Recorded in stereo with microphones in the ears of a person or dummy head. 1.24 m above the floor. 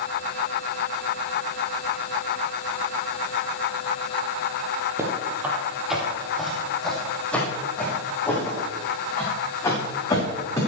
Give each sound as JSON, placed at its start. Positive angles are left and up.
{"t": 5.0, "sound": "footsteps", "side_deg": -15, "distance_m": 2.5}